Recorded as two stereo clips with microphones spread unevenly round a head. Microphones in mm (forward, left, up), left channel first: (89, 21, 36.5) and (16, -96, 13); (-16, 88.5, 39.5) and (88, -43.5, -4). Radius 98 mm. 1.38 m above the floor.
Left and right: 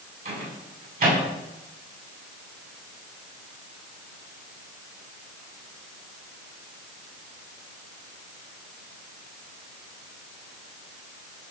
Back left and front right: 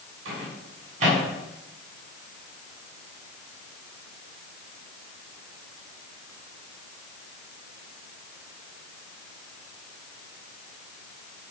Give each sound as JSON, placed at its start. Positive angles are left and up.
{"t": 0.2, "sound": "a microwave", "azimuth_deg": -110, "distance_m": 8.0}